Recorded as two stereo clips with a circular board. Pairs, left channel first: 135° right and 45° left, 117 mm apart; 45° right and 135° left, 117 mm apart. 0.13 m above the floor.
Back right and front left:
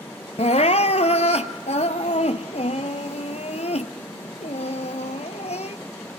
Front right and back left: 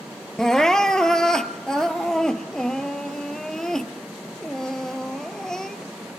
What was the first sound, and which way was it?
Crying, 130° right.